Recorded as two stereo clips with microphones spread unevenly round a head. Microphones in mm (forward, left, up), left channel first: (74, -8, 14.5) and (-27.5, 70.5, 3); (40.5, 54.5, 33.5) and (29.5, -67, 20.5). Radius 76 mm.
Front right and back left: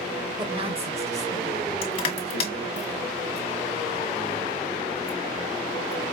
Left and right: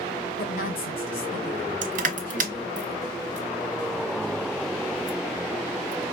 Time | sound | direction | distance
0.4 | a woman speaking | 85° left | 0.9 m
1.8 | crushing | 95° right | 1.6 m